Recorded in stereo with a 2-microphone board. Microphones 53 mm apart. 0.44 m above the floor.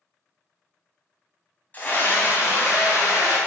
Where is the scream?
35° left (ahead or behind), 2.5 m; by 3.4 s 60° left (ahead or behind), 4 m.